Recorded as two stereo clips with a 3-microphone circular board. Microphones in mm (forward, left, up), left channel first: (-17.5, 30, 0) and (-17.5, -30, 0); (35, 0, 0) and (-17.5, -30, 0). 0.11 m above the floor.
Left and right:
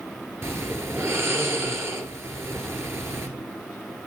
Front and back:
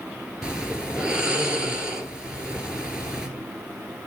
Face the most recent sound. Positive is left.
turn(degrees=-80)